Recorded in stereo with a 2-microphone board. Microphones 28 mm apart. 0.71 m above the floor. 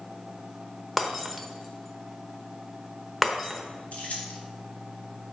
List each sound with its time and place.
1.0 s breaking glass: 5° left (ahead or behind), 0.9 m
3.9 s keys jangling: 70° left (ahead or behind), 1.5 m